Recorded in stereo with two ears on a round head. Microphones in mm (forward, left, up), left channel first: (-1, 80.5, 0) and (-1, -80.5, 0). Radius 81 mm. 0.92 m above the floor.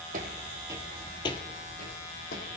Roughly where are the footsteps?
Right.